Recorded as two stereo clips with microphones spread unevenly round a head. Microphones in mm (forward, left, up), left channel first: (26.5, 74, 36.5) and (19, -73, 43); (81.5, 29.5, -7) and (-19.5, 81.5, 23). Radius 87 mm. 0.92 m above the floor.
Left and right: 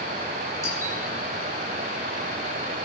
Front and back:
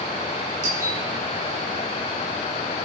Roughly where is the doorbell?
Behind left.